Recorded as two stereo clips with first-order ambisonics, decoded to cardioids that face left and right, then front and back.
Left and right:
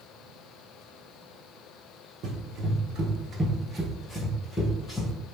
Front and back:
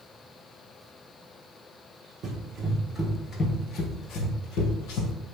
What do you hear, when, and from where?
2.2 s running footsteps: 130° right, 0.8 m; by 5.1 s 20° left, 1.2 m